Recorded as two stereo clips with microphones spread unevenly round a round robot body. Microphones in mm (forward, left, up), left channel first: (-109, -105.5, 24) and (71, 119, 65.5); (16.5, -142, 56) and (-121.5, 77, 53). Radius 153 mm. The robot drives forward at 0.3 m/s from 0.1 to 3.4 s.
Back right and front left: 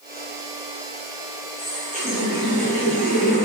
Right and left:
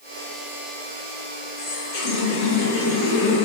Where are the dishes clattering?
No dishes clattering in this recording.